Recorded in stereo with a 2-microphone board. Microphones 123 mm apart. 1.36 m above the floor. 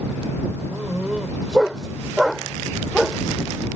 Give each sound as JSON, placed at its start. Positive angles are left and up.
{"t": 0.7, "sound": "a dog barking", "side_deg": -5}